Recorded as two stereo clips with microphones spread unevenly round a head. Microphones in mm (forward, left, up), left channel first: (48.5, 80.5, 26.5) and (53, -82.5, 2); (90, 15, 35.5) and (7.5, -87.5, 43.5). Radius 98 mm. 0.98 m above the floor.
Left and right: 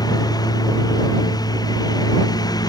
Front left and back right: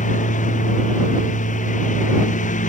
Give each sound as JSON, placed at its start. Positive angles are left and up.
{"t": 0.0, "sound": "a lawn mower", "azimuth_deg": 25}